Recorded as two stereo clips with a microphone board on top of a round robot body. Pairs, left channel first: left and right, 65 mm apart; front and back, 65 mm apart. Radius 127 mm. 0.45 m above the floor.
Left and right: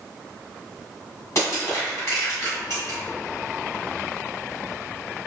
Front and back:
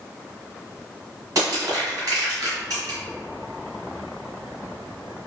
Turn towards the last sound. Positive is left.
turn(degrees=140)